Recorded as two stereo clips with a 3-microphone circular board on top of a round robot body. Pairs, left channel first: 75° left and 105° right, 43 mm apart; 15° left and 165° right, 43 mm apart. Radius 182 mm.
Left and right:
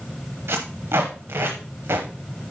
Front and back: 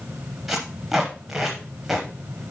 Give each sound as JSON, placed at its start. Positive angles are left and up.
{"t": 0.5, "sound": "tape being pulled", "azimuth_deg": -80, "distance_m": 0.6}